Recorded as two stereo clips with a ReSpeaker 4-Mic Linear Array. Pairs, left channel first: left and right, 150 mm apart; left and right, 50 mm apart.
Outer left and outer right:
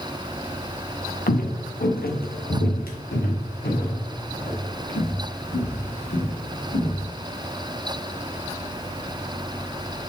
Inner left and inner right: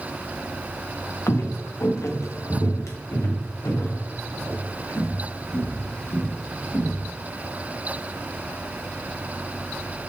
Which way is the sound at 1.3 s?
75° left (ahead or behind).